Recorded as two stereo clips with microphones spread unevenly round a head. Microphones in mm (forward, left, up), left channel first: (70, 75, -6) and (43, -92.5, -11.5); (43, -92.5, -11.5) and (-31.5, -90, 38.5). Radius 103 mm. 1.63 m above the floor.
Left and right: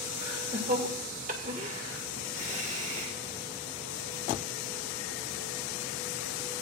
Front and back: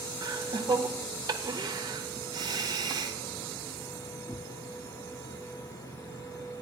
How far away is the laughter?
About 1.7 m.